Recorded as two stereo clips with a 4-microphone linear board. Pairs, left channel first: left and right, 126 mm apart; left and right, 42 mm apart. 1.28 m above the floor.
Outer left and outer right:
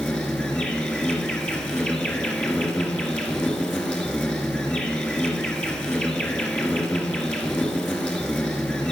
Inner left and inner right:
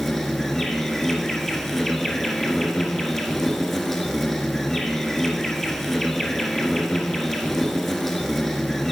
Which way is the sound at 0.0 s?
10° left (ahead or behind).